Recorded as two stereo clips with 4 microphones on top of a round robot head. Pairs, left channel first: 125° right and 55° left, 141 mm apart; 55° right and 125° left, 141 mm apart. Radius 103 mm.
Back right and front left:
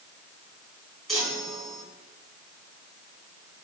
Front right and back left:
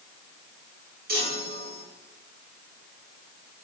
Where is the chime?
140° left, 4.5 m.